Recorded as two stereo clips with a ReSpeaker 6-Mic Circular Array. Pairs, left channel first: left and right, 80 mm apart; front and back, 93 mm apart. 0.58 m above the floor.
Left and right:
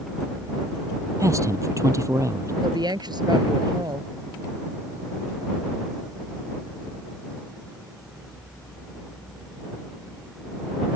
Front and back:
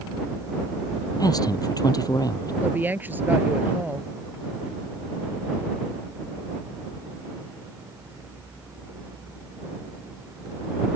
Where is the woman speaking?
110° right.